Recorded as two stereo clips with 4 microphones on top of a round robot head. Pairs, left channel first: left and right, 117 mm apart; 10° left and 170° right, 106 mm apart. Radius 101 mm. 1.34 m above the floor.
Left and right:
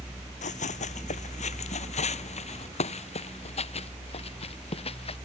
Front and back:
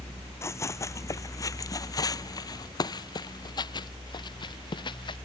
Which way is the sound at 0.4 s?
75° left.